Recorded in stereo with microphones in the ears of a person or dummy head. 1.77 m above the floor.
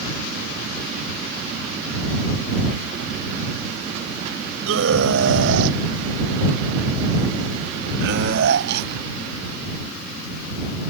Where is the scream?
70° right (ahead or behind); by 10.9 s 50° right (ahead or behind).